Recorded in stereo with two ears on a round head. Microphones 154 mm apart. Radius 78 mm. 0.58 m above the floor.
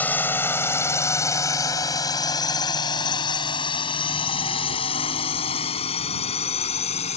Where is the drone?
10° left (ahead or behind); by 7.2 s 35° left (ahead or behind).